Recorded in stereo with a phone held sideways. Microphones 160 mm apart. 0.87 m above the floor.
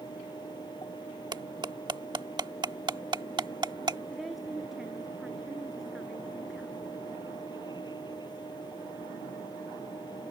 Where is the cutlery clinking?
30° right (ahead or behind).